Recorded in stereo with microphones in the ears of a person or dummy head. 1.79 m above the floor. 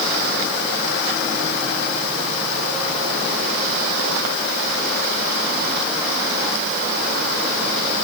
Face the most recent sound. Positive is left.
No sound to turn to.